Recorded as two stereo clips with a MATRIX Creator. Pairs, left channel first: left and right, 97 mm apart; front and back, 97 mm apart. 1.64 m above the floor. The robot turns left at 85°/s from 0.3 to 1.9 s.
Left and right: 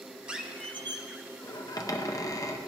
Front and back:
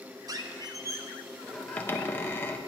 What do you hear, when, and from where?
0.3 s a squeak: 165° right, 0.7 m; by 2.6 s 60° left, 0.7 m